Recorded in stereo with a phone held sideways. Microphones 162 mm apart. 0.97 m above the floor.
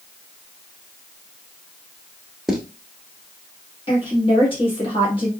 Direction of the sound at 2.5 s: Centre (ahead or behind).